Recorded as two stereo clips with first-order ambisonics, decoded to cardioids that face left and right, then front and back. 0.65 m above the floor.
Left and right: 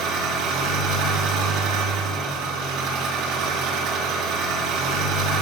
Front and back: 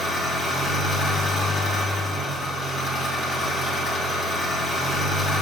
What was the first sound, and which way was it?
An engine running, 65° right.